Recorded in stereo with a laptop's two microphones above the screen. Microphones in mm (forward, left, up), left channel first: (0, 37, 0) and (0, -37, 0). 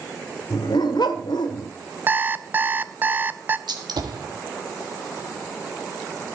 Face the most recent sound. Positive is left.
turn(degrees=-75)  # may be behind; listen again after turning